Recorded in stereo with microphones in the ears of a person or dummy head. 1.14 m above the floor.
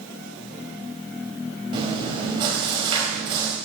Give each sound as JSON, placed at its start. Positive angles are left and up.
{"t": 1.7, "sound": "chewing", "side_deg": -30, "distance_m": 3.5}